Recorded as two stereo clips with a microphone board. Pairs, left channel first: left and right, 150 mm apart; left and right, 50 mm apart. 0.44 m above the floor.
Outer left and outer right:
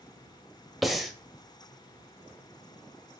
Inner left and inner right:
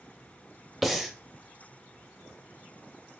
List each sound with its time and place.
0.8 s breathing: centre (ahead or behind), 1.0 m